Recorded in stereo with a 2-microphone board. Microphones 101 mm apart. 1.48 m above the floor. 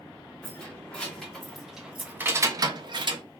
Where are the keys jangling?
15° left (ahead or behind), 1.4 m; by 3.2 s 50° right (ahead or behind), 0.6 m.